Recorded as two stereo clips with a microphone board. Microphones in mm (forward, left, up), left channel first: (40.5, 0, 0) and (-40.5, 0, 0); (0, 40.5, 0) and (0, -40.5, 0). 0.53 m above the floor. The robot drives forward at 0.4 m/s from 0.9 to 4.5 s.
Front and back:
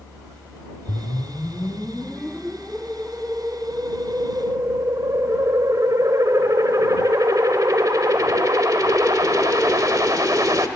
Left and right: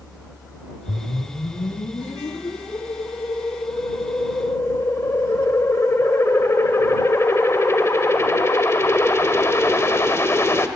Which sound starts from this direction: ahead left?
A whoosh, at 0.9 s.